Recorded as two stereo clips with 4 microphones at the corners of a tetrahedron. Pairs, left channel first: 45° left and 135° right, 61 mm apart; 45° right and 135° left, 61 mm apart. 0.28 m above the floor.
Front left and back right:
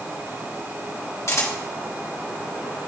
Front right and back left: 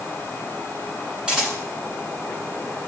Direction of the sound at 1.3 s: 60° left.